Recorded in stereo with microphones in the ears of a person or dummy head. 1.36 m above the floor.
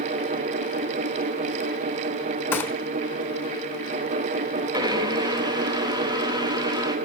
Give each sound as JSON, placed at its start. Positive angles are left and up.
{"t": 2.5, "sound": "a gunshot", "side_deg": 10, "distance_m": 1.1}
{"t": 4.7, "sound": "a blender", "side_deg": -20, "distance_m": 2.0}